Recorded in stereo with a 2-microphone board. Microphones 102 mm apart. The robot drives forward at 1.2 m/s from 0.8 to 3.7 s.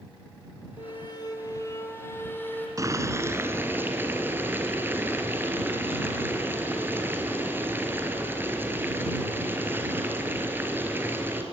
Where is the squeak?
55° left (ahead or behind), 1.2 m; by 2.7 s 20° left (ahead or behind), 3 m.